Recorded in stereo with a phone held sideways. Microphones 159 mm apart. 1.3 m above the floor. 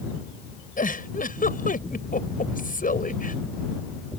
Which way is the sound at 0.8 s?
60° left (ahead or behind).